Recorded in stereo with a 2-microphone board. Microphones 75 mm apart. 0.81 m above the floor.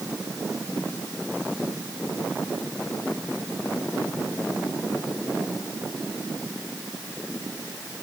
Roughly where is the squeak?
No squeak in this recording.